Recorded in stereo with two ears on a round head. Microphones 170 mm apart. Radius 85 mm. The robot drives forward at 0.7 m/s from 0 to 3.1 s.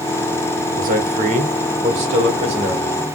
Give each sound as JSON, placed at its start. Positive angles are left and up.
{"t": 0.8, "sound": "a man speaking", "side_deg": -45, "distance_m": 1.5}